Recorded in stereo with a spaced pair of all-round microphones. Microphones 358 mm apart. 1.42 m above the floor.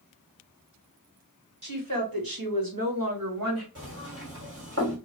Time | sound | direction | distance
1.6 | a woman speaking | 60° right (ahead or behind) | 1.5 m
3.8 | knocking | 40° right (ahead or behind) | 2.0 m